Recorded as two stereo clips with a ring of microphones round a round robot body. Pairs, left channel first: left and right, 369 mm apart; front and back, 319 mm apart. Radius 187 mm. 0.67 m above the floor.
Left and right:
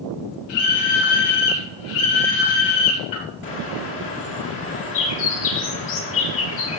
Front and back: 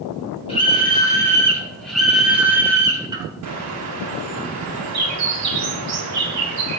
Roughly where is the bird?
Behind left.